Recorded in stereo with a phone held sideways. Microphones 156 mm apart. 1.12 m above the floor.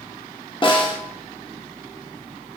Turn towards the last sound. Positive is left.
turn(degrees=30)  # may be behind; listen again after turning